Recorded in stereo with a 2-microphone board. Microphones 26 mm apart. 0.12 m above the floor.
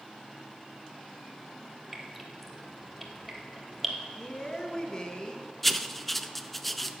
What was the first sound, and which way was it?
Dripping, centre (ahead or behind).